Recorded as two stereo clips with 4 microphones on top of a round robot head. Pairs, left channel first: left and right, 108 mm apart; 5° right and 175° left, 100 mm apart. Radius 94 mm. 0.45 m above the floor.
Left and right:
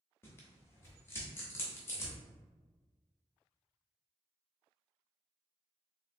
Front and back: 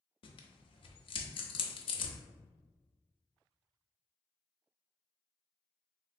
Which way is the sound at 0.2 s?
20° left.